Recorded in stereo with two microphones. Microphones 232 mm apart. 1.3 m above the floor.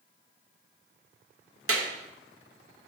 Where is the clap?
70° right (ahead or behind), 0.8 m.